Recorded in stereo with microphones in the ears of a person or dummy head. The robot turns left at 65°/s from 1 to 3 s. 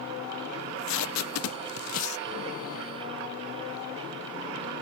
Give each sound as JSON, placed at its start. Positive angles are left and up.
{"t": 0.6, "sound": "tape being pulled", "side_deg": 70}